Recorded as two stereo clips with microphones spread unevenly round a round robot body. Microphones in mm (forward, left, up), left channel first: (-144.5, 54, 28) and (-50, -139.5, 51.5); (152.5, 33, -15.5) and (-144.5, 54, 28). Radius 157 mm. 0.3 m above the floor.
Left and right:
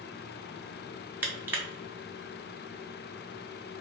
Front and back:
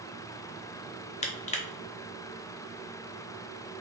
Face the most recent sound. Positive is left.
turn(degrees=20)